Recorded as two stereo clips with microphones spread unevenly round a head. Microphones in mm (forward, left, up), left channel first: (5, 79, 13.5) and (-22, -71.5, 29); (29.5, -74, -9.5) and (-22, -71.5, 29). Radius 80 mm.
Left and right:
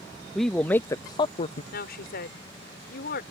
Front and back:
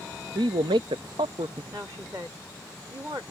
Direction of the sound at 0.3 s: 170° left.